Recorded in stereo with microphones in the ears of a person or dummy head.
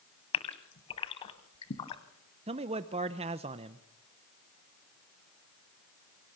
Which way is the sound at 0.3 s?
35° left (ahead or behind).